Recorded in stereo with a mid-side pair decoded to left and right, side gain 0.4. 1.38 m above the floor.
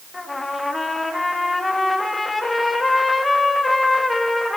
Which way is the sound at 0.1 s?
20° left.